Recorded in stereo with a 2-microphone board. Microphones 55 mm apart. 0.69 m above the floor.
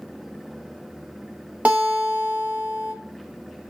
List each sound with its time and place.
1.6 s a guitar: 30° right (ahead or behind), 1.0 m